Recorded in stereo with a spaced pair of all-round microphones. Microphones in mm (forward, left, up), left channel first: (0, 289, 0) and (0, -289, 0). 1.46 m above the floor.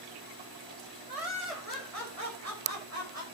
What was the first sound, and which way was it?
Laughter, 80° right.